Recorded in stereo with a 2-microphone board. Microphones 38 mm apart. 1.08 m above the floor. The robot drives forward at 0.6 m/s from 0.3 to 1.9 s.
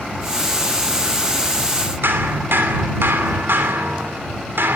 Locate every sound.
2.0 s hammering: 80° right, 3 m